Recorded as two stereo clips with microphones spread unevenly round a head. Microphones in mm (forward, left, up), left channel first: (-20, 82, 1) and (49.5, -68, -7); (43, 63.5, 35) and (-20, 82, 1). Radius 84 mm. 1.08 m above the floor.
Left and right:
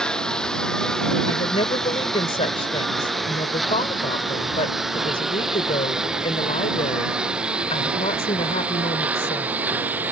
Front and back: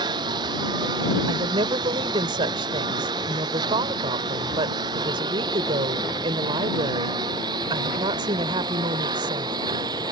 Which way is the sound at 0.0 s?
160° right.